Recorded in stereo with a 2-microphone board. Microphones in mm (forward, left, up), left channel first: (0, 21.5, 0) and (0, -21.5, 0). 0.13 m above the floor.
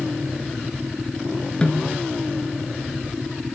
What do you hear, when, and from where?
1.6 s a snare drum: 25° left (ahead or behind), 1.1 m